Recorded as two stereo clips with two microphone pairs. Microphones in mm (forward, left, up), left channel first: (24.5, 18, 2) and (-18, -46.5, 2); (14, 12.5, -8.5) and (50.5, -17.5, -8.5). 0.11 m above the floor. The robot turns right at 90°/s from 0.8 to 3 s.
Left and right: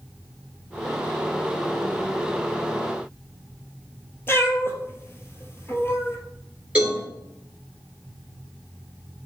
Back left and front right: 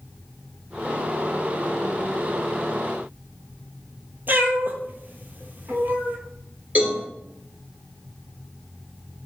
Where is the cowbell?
60° right, 1.6 m.